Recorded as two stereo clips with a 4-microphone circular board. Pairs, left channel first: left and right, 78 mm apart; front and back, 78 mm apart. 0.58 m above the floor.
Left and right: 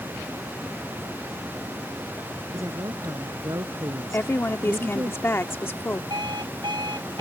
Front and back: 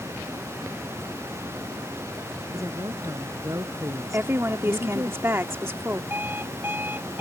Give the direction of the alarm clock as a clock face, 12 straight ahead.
4 o'clock.